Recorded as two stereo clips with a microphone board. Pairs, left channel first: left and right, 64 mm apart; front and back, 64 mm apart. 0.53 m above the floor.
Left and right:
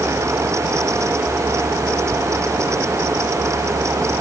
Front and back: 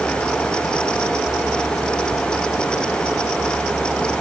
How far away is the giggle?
I don't hear a giggle.